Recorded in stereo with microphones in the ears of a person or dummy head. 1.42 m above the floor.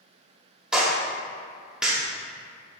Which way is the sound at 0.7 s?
5° right (ahead or behind).